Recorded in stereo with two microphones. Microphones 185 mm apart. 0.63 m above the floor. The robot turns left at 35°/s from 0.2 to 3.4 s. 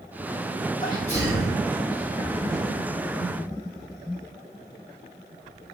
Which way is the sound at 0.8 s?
25° left (ahead or behind).